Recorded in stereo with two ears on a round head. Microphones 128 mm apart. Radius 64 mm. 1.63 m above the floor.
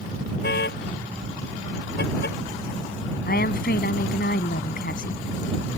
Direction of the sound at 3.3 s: 65° left (ahead or behind).